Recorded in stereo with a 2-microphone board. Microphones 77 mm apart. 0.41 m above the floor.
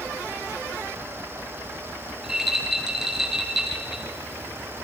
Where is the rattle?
5° right (ahead or behind), 5.5 m.